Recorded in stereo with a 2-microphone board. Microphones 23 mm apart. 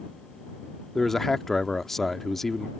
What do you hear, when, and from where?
0.9 s a man speaking: 15° left (ahead or behind)